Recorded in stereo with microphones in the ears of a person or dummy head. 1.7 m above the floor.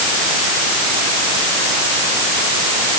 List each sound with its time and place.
Only background noise.